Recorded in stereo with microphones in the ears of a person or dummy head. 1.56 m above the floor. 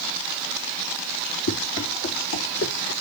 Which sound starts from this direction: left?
Running footsteps, at 1.5 s.